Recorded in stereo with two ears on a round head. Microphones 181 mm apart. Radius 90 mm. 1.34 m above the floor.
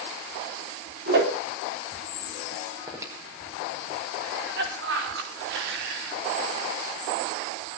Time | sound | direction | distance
1.1 | a whoosh | 55° right (ahead or behind) | 3.5 m
2.9 | breathing | 15° right (ahead or behind) | 4.5 m
4.2 | a cough | 60° right (ahead or behind) | 4 m